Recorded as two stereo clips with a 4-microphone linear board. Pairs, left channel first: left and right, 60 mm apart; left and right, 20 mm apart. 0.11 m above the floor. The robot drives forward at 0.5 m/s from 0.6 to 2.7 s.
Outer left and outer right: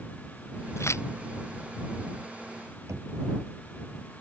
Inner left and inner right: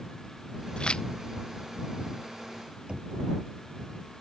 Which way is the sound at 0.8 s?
50° left (ahead or behind).